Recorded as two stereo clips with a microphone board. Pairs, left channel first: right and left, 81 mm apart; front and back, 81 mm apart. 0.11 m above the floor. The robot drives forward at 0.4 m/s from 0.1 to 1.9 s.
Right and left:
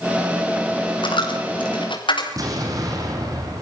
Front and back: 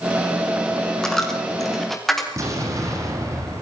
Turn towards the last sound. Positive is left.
turn(degrees=130)